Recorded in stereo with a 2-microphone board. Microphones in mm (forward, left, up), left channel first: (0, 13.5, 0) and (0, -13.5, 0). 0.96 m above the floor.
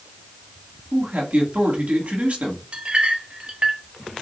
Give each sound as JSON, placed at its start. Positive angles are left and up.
{"t": 0.9, "sound": "a man speaking", "side_deg": -55, "distance_m": 1.3}
{"t": 2.7, "sound": "a clink", "side_deg": -40, "distance_m": 0.7}